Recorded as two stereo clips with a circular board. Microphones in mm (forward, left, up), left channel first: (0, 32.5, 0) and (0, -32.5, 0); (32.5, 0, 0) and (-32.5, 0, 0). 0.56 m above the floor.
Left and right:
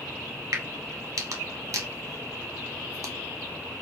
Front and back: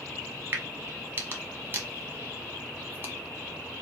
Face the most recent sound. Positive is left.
turn(degrees=-125)